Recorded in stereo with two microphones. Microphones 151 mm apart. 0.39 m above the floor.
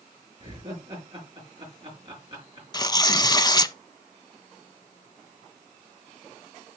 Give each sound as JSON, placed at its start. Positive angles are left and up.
{"t": 0.4, "sound": "laughter", "side_deg": -35, "distance_m": 4.5}
{"t": 2.7, "sound": "tearing paper", "side_deg": 25, "distance_m": 0.5}